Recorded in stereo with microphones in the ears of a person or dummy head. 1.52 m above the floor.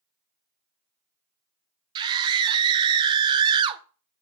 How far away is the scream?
About 1.7 m.